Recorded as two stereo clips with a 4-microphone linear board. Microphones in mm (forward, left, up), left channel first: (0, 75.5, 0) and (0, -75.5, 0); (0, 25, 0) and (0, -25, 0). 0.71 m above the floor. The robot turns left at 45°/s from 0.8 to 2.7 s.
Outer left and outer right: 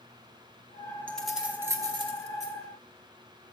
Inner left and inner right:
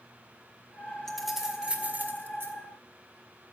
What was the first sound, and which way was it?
Keys jangling, 10° left (ahead or behind).